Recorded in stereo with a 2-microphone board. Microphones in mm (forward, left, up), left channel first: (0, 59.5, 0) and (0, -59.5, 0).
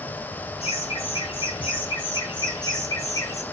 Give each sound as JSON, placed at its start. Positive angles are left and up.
{"t": 0.6, "sound": "laughter", "side_deg": 55, "distance_m": 4.0}